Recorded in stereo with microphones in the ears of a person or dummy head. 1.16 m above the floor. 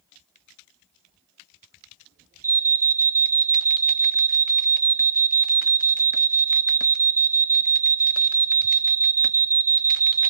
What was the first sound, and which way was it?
An alarm, 10° right (ahead or behind).